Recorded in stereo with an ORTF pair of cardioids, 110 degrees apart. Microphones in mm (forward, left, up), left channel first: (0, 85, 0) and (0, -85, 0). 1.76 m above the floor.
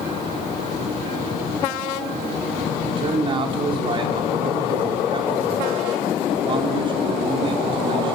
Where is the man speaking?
30° right, 5.5 m.